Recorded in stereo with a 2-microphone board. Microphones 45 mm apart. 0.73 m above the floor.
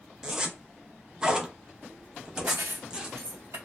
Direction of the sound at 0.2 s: 15° right (ahead or behind).